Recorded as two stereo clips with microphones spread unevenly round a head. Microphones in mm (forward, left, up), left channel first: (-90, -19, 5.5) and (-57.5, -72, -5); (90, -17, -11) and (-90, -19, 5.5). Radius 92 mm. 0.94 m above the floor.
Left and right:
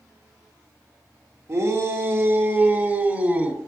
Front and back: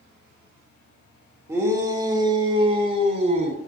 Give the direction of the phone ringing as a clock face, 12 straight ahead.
I don't hear a phone ringing.